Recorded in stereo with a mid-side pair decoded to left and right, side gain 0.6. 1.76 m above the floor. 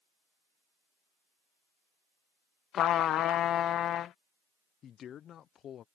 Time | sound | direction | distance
2.7 | a trumpet | 50° left | ?
4.8 | a man speaking | 50° left | ?